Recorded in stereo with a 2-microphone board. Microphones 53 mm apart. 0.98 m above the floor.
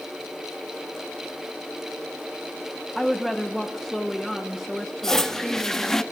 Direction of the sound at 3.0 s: 5° right (ahead or behind).